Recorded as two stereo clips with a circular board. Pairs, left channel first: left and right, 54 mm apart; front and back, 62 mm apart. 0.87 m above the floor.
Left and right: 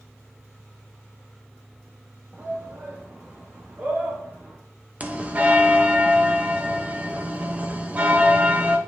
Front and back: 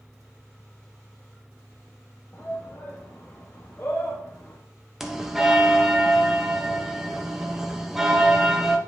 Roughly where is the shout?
Ahead right.